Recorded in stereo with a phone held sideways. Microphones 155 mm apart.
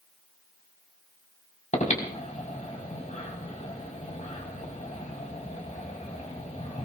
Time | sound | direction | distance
1.7 | breathing | 50° left (ahead or behind) | 4.5 m